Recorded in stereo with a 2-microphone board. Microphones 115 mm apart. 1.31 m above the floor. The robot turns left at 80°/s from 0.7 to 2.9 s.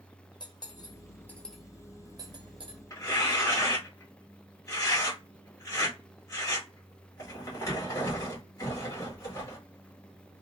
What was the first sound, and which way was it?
Cutlery clinking, 40° left (ahead or behind).